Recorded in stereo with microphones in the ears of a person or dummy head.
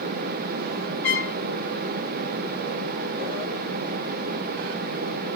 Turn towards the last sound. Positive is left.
turn(degrees=5)  # may be behind; listen again after turning